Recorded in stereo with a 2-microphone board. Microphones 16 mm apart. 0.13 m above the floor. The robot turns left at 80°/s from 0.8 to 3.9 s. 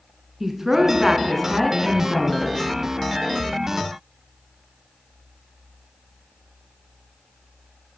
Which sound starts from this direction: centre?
A woman speaking, at 0.4 s.